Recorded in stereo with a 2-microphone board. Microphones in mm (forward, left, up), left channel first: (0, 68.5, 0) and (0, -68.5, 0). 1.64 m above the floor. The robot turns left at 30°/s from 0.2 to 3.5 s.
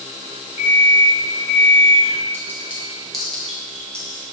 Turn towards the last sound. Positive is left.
turn(degrees=10)  # may be behind; listen again after turning